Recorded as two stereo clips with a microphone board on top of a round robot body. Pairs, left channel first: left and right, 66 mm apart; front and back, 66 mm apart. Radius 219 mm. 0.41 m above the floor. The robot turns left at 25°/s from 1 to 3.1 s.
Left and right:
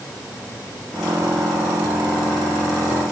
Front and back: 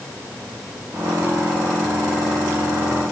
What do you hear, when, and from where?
Only background noise.